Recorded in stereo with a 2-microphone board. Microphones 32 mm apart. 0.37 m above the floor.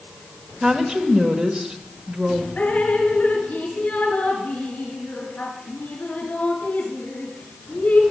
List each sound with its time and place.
0.6 s a woman speaking: 30° right (ahead or behind), 1.2 m
2.6 s dripping: 50° left (ahead or behind), 2.5 m